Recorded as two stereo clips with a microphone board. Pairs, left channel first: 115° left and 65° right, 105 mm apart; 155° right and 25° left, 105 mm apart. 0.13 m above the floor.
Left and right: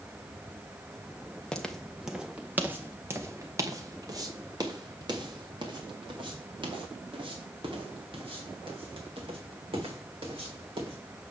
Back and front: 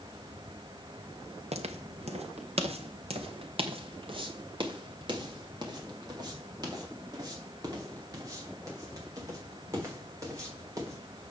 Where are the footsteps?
30° left, 1.3 m; by 11.0 s 35° right, 6 m.